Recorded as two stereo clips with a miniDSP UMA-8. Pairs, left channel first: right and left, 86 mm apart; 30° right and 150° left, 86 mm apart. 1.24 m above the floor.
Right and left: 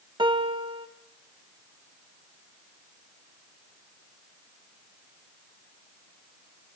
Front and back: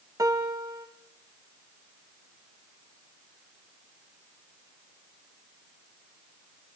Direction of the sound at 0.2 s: 105° left.